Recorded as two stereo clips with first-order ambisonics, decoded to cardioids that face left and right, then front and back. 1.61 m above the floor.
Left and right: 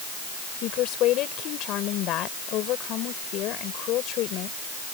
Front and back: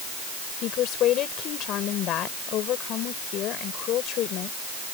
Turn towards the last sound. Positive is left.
turn(degrees=45)